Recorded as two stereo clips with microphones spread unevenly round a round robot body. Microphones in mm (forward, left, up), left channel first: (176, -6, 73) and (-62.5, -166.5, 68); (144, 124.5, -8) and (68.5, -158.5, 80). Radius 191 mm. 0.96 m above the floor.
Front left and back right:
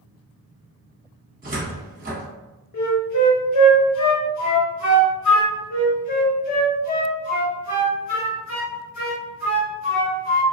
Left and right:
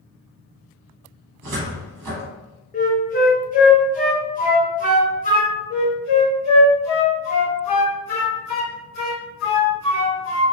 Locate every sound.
1.4 s a cupboard door: 85° right, 1.0 m
2.7 s a flute: 25° left, 0.8 m
5.7 s a flute: 60° left, 1.4 m